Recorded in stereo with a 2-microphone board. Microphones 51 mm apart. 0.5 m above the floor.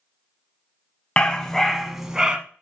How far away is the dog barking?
About 0.9 m.